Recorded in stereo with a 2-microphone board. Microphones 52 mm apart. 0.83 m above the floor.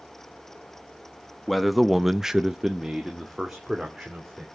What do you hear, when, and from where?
1.5 s a man speaking: centre (ahead or behind), 1.1 m; by 4.5 s 5° right (ahead or behind), 3 m